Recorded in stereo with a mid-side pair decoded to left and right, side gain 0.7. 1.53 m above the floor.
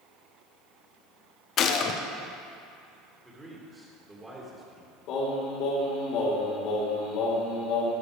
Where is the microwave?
No microwave in this recording.